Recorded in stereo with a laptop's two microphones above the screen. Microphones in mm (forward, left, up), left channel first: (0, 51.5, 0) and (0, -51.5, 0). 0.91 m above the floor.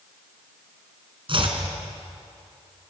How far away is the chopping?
About 3.5 m.